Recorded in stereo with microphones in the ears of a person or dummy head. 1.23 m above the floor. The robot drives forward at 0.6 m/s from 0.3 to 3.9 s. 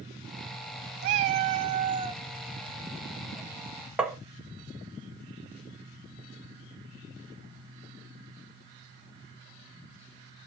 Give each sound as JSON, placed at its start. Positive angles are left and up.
{"t": 1.0, "sound": "a cat meowing", "side_deg": -45, "distance_m": 0.6}
{"t": 4.0, "sound": "tapping", "side_deg": -5, "distance_m": 0.6}